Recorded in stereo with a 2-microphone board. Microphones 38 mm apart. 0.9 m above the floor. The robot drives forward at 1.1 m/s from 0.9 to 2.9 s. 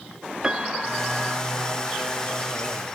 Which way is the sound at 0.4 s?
20° right (ahead or behind).